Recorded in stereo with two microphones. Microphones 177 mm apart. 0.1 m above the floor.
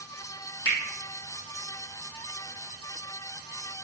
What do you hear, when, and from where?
0.7 s a finger snap: 60° left (ahead or behind), 3 m